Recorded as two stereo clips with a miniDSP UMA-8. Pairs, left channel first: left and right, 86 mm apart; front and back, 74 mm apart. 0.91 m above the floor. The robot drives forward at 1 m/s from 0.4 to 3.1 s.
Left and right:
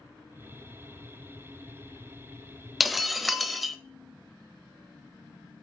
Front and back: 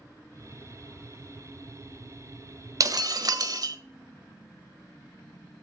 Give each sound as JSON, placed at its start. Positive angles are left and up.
{"t": 2.8, "sound": "breaking glass", "azimuth_deg": 180, "distance_m": 0.8}